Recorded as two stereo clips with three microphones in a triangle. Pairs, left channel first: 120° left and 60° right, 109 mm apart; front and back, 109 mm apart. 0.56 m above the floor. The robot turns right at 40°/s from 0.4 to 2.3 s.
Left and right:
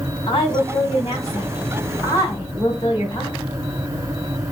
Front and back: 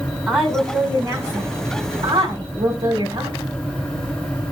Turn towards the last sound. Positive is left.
turn(degrees=170)